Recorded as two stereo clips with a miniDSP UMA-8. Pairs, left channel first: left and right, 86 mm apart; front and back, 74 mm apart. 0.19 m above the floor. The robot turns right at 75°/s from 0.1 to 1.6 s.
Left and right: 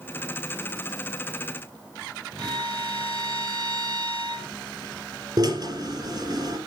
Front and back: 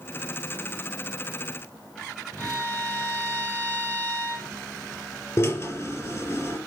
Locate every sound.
2.4 s a violin: 70° right, 8 m
5.4 s a drill: 55° right, 4.5 m